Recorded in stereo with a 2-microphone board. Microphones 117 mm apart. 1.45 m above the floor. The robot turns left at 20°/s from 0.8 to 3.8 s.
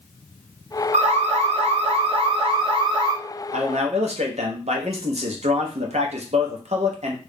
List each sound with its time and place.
0.9 s an alarm: 100° right, 0.8 m; by 3.1 s 145° right, 0.8 m
3.5 s a man speaking: 75° right (ahead or behind), 0.9 m; by 7.2 s 70° right (ahead or behind), 0.9 m